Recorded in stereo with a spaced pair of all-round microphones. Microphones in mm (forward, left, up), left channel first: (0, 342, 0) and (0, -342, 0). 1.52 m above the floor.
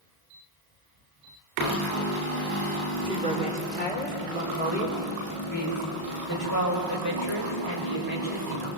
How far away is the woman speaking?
About 5 m.